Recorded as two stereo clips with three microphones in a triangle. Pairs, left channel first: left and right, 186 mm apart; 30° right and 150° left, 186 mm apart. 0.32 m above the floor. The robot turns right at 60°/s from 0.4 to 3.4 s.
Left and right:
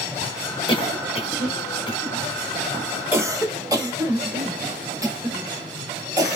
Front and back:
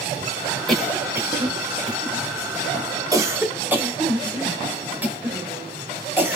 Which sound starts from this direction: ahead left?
A cough, at 0.7 s.